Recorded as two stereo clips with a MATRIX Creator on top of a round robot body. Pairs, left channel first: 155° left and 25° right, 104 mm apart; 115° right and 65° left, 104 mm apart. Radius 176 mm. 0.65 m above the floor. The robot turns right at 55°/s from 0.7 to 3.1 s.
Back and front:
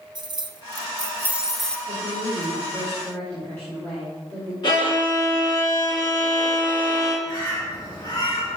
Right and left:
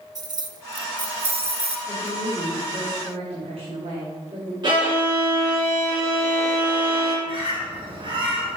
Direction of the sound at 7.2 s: 105° left.